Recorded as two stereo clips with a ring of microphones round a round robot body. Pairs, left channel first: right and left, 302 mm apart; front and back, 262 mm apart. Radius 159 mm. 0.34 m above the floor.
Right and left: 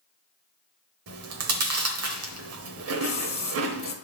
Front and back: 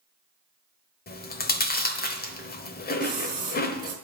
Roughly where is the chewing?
Ahead left.